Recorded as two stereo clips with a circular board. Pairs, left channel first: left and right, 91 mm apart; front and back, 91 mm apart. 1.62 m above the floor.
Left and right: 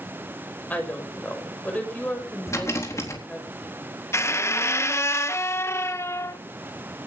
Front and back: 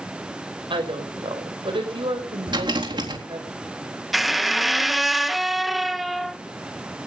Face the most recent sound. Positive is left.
turn(degrees=95)